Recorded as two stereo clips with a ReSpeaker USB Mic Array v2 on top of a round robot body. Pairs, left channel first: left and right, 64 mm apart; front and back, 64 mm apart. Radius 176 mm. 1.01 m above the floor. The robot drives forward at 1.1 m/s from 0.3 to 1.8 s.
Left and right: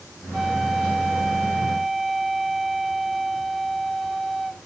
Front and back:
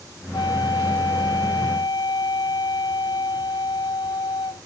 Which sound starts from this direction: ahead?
A flute, at 0.3 s.